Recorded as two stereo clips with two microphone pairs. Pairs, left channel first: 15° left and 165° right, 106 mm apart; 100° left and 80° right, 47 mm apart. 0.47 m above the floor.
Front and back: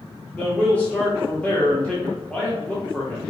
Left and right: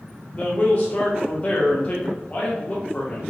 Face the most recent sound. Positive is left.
turn(degrees=80)